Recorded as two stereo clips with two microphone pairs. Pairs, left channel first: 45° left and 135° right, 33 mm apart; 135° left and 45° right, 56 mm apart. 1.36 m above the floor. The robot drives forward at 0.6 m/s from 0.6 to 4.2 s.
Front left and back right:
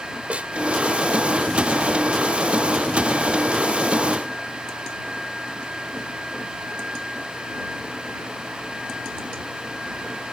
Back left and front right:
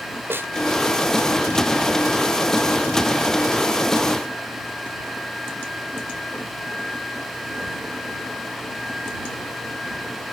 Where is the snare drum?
85° right.